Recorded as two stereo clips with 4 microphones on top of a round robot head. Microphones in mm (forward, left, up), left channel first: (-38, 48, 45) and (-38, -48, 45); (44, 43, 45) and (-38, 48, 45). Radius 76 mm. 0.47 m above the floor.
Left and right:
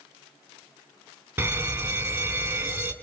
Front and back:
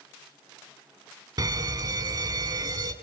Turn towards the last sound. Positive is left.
turn(degrees=-160)